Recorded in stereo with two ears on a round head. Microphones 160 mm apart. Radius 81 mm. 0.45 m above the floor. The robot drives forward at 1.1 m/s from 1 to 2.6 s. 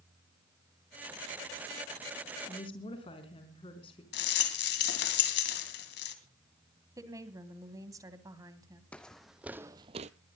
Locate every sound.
2.5 s a woman speaking: 30° left (ahead or behind), 4 m
4.1 s a rattle: 60° left (ahead or behind), 2.5 m
7.0 s a woman speaking: 20° right (ahead or behind), 2.5 m
8.9 s footsteps: 5° left (ahead or behind), 1.3 m; by 10.1 s 40° right (ahead or behind), 0.7 m